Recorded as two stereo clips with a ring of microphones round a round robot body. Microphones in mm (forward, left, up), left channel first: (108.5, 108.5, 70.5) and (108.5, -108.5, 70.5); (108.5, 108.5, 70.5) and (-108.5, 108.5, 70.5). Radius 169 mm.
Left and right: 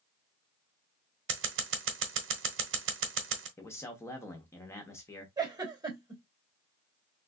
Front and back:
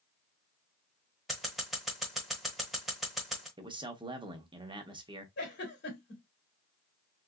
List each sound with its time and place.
1.3 s scissors: 90° right, 0.9 m
3.6 s a man speaking: 150° left, 0.9 m
5.4 s a giggle: 20° right, 2.5 m